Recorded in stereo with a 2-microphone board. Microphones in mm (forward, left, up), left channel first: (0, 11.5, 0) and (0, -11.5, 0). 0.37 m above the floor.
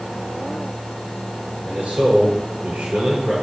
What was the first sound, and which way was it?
A man speaking, 75° right (ahead or behind).